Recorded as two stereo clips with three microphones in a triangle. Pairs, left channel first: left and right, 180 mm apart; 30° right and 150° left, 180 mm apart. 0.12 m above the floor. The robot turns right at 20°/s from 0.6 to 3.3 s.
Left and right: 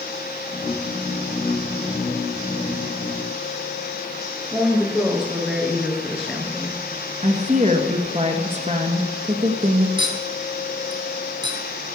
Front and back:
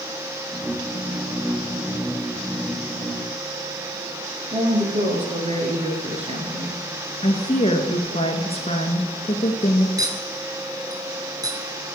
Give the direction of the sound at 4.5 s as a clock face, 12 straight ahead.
6 o'clock.